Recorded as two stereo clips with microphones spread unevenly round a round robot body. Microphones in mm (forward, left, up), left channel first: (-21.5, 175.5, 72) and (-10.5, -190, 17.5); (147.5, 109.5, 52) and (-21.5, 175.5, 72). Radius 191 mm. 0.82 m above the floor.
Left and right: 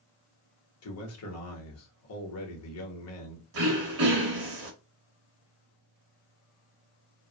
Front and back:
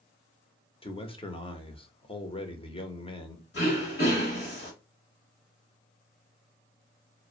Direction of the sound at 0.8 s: 40° left.